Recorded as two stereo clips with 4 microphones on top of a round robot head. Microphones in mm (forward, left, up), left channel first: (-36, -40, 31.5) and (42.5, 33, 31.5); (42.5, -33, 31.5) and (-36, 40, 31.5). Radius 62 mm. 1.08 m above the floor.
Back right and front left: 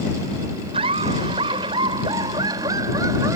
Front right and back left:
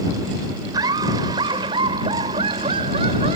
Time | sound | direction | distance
0.7 | laughter | 85° left | ?